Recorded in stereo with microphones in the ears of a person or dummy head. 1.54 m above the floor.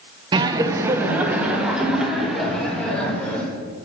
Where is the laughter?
25° right (ahead or behind), 0.9 m; by 3.5 s 10° left (ahead or behind), 2.5 m.